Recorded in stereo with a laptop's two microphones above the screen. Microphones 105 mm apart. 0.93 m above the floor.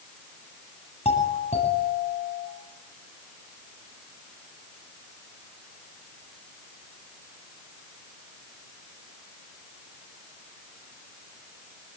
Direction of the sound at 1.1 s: 85° left.